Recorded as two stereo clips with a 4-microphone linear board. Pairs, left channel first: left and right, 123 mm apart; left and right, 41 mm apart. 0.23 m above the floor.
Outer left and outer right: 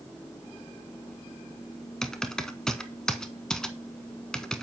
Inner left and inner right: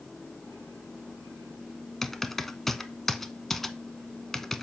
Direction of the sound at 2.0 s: 5° left (ahead or behind).